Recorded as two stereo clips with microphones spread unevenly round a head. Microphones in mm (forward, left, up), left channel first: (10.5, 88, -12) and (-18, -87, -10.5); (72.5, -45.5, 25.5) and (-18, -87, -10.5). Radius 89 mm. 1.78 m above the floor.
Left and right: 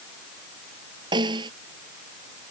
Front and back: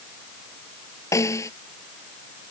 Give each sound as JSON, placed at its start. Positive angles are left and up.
{"t": 1.1, "sound": "a snare drum", "azimuth_deg": -30}